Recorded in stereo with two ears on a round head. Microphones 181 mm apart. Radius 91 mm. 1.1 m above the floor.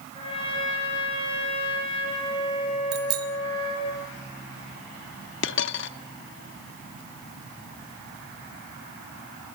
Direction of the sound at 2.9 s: 75° right (ahead or behind).